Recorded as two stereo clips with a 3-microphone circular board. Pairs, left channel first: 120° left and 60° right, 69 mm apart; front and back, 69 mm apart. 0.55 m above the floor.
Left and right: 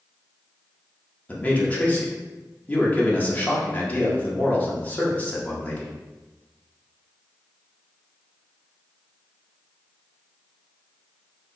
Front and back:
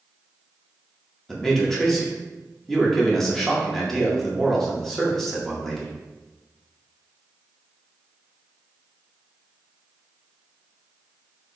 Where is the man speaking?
80° left, 1.0 m.